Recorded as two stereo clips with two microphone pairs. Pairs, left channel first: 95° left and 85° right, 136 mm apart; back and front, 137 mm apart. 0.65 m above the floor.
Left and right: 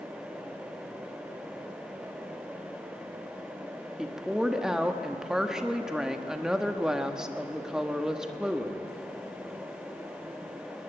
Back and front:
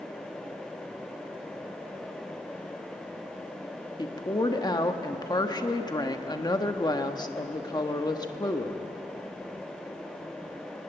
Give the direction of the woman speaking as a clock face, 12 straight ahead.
6 o'clock.